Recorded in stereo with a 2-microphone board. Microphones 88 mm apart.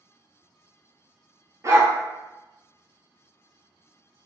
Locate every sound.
1.6 s a dog barking: 40° right (ahead or behind), 0.7 m